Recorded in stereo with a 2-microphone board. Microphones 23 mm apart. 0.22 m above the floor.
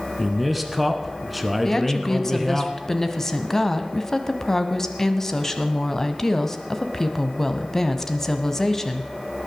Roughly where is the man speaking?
Centre.